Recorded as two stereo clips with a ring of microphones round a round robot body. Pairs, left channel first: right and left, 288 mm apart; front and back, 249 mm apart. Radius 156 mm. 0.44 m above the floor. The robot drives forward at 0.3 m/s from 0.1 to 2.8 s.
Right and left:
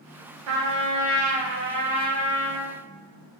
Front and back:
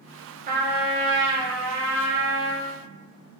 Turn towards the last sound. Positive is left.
turn(degrees=155)